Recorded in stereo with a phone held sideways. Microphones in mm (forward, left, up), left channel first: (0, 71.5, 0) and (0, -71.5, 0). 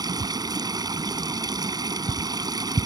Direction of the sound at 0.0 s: 30° right (ahead or behind).